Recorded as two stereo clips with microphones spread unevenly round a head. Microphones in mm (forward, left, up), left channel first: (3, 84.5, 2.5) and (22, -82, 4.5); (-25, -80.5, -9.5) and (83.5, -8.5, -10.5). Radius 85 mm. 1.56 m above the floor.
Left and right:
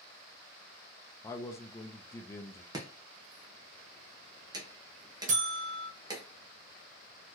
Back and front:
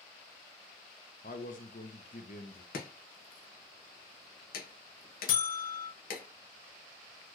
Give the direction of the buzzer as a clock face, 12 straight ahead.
4 o'clock.